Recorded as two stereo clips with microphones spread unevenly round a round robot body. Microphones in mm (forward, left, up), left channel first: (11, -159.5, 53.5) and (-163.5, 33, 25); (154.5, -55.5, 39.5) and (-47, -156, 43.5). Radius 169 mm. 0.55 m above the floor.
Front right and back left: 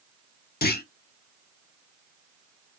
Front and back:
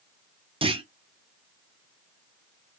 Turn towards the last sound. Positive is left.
turn(degrees=-95)